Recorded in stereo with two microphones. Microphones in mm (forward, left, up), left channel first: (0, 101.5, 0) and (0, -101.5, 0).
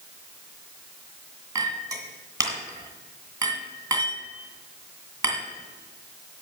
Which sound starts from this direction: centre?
A clink, at 1.6 s.